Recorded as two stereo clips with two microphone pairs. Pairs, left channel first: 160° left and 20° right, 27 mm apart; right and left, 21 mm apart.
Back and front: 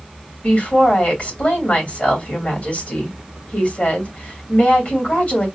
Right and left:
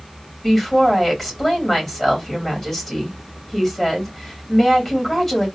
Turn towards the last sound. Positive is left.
turn(degrees=-170)